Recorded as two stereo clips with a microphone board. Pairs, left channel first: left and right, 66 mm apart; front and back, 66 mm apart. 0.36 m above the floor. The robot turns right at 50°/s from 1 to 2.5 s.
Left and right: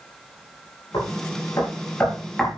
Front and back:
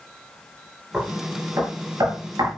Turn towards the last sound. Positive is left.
turn(degrees=180)